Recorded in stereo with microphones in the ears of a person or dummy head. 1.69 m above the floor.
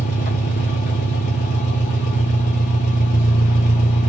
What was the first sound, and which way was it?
An engine running, 45° left (ahead or behind).